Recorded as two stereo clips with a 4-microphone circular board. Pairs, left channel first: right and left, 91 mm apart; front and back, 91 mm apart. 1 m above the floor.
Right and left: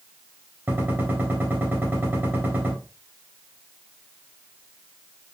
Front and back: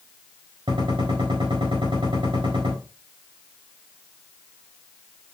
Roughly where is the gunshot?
Behind left.